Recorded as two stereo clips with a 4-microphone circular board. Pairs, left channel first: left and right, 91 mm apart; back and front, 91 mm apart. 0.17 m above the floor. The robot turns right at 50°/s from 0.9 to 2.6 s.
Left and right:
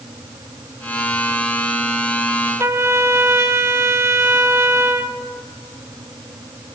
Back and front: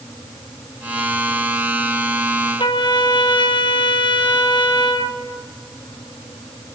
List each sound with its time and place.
2.6 s a trumpet: 150° right, 0.9 m